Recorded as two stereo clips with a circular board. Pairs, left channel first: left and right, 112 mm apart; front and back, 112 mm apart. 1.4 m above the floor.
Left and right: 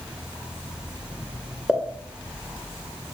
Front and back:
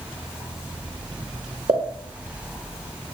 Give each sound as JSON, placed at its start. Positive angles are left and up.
{"t": 1.7, "sound": "a pop", "azimuth_deg": -175, "distance_m": 0.6}